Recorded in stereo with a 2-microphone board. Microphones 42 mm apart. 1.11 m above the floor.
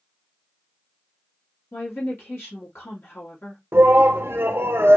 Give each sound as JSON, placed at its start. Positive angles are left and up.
{"t": 1.7, "sound": "a woman speaking", "side_deg": 60, "distance_m": 1.9}
{"t": 3.7, "sound": "a shout", "side_deg": -60, "distance_m": 1.0}